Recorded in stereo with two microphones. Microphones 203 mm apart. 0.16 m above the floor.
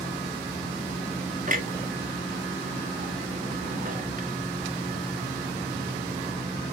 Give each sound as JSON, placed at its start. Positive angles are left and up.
{"t": 1.5, "sound": "a clunk", "side_deg": -45, "distance_m": 1.7}